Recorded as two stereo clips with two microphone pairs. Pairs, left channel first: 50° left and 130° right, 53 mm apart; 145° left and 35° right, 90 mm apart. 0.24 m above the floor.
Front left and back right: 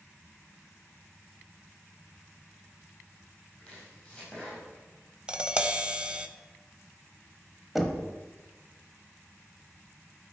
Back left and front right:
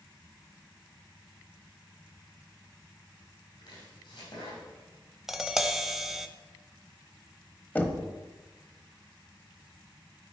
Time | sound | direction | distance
3.6 | chopping | 125° left | 4.5 m
5.3 | tapping | 115° right | 0.6 m
7.8 | knocking | 150° left | 1.0 m